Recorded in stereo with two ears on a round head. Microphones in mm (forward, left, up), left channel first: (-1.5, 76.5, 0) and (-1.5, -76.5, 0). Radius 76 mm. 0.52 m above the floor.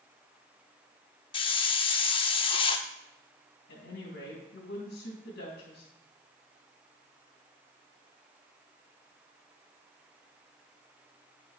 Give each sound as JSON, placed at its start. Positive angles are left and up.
{"t": 1.3, "sound": "a hiss", "side_deg": 30, "distance_m": 0.6}
{"t": 3.7, "sound": "a woman speaking", "side_deg": 70, "distance_m": 3.0}